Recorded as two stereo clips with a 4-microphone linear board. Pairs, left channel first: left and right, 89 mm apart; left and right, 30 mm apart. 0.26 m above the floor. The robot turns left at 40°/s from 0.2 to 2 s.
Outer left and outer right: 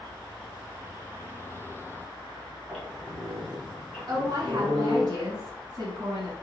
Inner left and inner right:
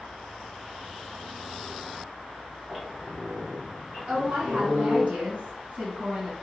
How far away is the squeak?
About 1.6 m.